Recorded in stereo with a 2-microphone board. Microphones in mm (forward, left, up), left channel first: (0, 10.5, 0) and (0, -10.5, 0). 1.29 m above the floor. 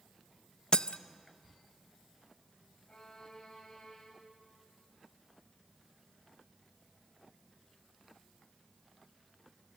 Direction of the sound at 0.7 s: 45° left (ahead or behind).